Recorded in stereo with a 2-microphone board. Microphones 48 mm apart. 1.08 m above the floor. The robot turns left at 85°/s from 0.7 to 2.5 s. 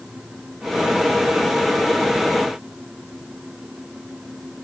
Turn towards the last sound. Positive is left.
No sound to turn to.